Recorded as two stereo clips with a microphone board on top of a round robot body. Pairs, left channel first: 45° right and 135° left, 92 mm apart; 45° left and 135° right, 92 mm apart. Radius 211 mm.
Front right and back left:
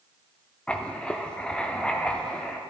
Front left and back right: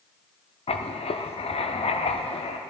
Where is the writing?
35° left, 0.7 m.